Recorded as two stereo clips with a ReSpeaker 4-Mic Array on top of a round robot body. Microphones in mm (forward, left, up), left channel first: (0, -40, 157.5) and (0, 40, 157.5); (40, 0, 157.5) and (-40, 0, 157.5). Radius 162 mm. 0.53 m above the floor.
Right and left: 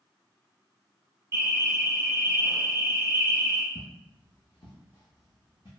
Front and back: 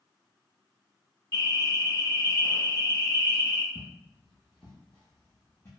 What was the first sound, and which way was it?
An alarm, 45° left.